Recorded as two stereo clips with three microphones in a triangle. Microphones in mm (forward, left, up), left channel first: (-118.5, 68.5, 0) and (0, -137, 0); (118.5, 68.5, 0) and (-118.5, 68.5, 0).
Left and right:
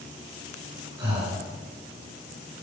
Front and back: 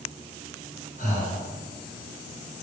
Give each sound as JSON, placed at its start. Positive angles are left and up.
{"t": 1.0, "sound": "breathing", "azimuth_deg": 5, "distance_m": 1.6}